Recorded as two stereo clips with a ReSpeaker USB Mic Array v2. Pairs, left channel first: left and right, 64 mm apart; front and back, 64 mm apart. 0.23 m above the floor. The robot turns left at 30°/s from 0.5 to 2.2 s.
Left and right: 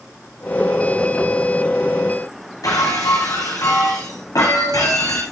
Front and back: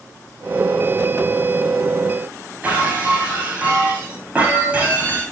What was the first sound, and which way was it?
Breaking glass, 110° left.